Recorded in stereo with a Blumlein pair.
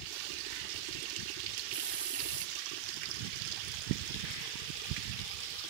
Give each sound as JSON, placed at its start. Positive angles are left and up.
{"t": 1.7, "sound": "a hiss", "azimuth_deg": -60, "distance_m": 0.6}